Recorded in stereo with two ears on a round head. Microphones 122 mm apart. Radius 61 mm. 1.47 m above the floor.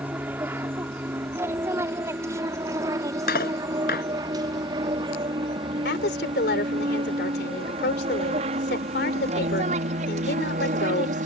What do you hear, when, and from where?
0.0 s an aircraft: 15° right (ahead or behind); by 11.3 s 60° right (ahead or behind)
3.3 s cutlery clinking: 70° left (ahead or behind)
5.8 s a woman speaking: 90° left